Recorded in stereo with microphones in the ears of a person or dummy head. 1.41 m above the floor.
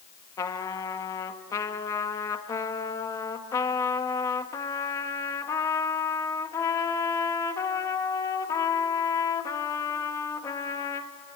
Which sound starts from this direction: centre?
A trumpet, at 0.4 s.